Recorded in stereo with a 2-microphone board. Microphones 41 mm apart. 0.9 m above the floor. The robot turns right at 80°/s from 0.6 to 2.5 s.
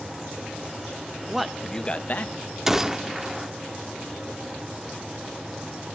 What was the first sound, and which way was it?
A man speaking, 15° right.